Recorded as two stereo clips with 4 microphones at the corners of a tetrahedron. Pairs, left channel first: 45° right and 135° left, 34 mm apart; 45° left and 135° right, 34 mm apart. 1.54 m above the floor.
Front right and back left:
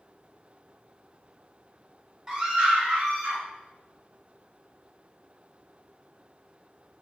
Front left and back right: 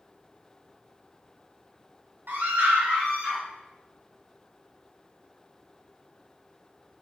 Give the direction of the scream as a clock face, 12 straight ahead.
5 o'clock.